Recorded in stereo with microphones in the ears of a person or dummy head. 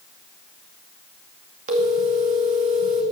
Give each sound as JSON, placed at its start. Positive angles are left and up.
{"t": 1.7, "sound": "a phone ringing", "side_deg": -45, "distance_m": 2.0}